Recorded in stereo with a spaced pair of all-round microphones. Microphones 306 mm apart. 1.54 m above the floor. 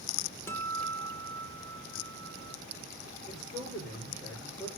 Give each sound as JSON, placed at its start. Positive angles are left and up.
{"t": 0.5, "sound": "a guitar", "side_deg": 10, "distance_m": 1.0}
{"t": 3.3, "sound": "a man speaking", "side_deg": 10, "distance_m": 5.5}